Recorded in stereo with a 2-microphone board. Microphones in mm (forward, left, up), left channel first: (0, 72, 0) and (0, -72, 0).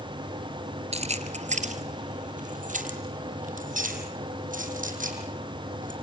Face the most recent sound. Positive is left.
turn(degrees=-70)  # may be behind; listen again after turning